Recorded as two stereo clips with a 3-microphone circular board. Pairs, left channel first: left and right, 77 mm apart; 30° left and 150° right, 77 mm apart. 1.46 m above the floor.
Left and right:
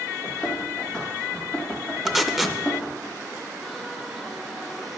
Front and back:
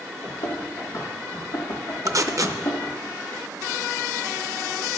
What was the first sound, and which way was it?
Running footsteps, 15° left.